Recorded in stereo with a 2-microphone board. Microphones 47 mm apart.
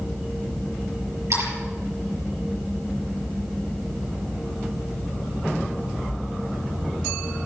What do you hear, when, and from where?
1.3 s a splash: 70° right (ahead or behind), 5.5 m